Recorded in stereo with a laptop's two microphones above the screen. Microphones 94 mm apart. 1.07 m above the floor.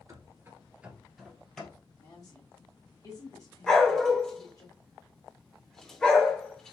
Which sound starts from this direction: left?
A woman speaking, at 2.0 s.